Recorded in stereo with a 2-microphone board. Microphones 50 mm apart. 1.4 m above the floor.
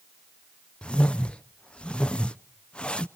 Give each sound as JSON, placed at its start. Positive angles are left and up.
{"t": 0.8, "sound": "a whoosh", "side_deg": 20, "distance_m": 0.5}